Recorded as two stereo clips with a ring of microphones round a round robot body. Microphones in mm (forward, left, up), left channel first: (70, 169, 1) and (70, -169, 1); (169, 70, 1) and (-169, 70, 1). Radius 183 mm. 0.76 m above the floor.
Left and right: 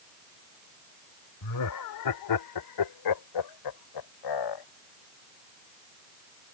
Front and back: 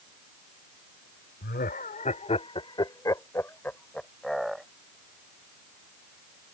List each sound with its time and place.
1.4 s laughter: 60° left; by 4.7 s 90° left